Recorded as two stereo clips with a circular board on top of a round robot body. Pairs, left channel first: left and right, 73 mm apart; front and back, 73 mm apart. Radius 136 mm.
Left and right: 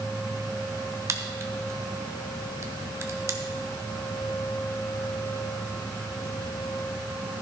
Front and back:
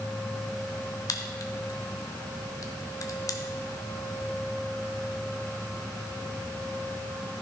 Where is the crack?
40° right, 1.3 m.